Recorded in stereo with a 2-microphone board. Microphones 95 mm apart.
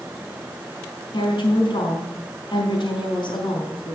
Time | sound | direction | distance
1.1 | a woman speaking | 55° left (ahead or behind) | 4.5 m